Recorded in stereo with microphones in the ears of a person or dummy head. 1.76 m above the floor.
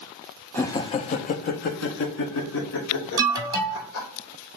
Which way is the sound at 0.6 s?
10° left (ahead or behind).